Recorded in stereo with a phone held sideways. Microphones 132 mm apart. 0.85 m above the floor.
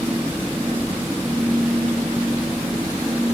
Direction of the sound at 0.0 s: 15° right (ahead or behind).